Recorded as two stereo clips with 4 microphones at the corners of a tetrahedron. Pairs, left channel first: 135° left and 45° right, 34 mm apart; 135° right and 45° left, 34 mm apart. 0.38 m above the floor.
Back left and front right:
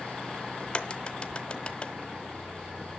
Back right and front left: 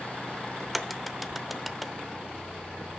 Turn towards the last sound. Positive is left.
turn(degrees=135)